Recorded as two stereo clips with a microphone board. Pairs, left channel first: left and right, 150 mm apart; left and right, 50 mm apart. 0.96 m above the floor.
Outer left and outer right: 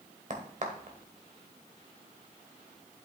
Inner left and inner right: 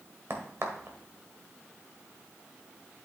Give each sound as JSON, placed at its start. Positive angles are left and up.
{"t": 0.3, "sound": "a crack", "side_deg": -55, "distance_m": 1.5}